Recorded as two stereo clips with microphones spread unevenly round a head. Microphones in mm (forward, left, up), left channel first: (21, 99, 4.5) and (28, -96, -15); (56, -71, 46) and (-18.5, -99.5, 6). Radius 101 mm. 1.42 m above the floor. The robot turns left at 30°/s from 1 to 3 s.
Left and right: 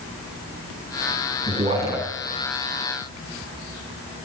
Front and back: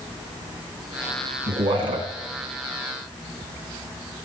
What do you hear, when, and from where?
1.5 s a man speaking: 155° right, 2.5 m; by 2.1 s 170° right, 2.5 m